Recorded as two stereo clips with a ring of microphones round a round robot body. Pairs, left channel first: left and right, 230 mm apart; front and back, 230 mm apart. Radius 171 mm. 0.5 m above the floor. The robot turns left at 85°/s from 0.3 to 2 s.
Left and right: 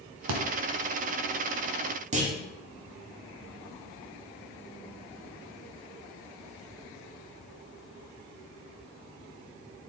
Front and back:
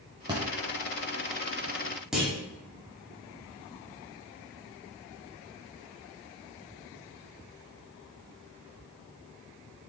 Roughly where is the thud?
Right.